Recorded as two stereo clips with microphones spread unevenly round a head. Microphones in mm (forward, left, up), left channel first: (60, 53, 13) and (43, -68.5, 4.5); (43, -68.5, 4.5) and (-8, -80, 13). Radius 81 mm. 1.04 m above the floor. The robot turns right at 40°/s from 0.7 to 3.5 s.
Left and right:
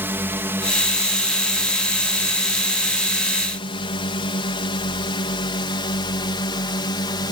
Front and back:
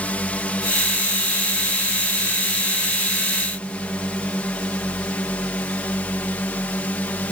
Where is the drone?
35° right; by 7.3 s 55° left.